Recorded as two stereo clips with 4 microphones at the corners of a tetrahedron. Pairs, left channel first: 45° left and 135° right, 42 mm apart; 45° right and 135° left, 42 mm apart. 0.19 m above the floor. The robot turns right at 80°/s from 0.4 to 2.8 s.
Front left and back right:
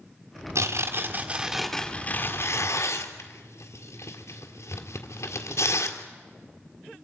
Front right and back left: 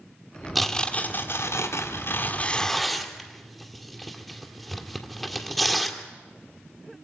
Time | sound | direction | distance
0.6 | tearing paper | 135° right | 1.9 m